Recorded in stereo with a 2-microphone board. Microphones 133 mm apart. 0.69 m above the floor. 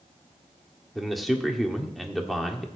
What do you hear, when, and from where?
0.9 s a man speaking: centre (ahead or behind), 1.6 m